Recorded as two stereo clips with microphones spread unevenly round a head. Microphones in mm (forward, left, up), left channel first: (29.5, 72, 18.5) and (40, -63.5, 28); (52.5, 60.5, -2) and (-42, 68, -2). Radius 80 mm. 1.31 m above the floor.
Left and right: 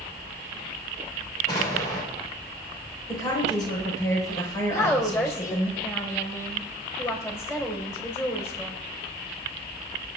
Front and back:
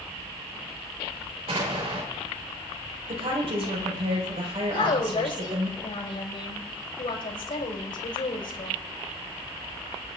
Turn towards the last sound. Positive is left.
turn(degrees=25)